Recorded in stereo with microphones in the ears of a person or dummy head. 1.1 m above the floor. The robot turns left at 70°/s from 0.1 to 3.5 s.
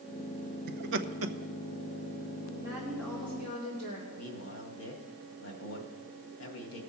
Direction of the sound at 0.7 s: 45° right (ahead or behind).